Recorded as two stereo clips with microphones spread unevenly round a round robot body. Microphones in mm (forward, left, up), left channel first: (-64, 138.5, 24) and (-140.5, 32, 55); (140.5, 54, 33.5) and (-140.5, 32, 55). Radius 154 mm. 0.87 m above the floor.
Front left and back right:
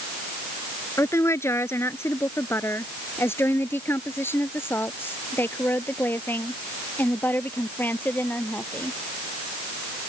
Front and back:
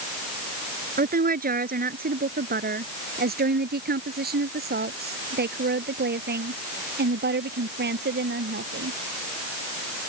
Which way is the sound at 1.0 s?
125° left.